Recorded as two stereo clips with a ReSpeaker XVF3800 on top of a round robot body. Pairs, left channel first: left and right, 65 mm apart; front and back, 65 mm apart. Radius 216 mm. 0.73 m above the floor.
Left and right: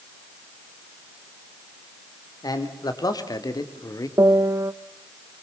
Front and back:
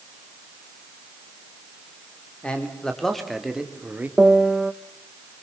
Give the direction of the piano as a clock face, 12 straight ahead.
3 o'clock.